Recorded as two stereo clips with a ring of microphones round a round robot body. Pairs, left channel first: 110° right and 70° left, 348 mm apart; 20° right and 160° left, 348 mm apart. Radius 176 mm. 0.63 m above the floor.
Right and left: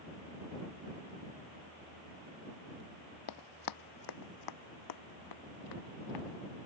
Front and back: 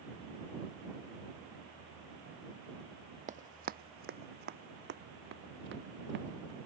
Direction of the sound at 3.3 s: 135° right.